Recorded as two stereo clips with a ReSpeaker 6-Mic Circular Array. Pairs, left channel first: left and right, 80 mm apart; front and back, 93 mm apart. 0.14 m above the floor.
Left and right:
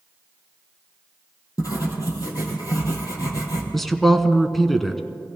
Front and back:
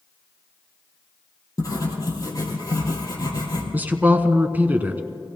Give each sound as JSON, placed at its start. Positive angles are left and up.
{"t": 1.6, "sound": "writing", "azimuth_deg": 50, "distance_m": 3.5}
{"t": 3.7, "sound": "a man speaking", "azimuth_deg": 175, "distance_m": 1.0}